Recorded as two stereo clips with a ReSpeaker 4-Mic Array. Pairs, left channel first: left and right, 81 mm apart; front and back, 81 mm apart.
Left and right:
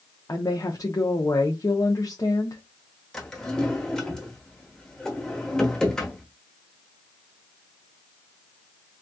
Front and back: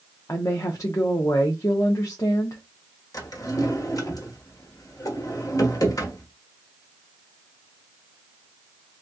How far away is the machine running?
No machine running in this recording.